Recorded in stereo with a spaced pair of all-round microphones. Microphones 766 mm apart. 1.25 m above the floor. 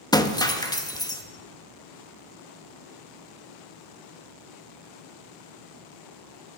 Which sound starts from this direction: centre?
Breaking glass, at 0.1 s.